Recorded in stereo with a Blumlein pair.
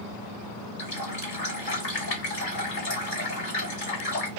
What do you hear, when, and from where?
0.8 s a running tap: 50° left, 1.7 m